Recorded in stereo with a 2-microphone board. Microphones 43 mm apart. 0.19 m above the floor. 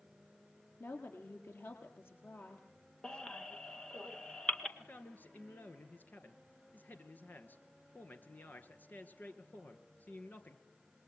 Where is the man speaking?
45° left (ahead or behind), 2.5 m.